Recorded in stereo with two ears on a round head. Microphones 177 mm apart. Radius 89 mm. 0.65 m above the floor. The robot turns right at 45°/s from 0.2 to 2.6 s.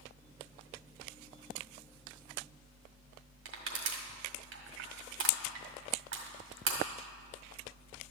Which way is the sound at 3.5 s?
65° right (ahead or behind).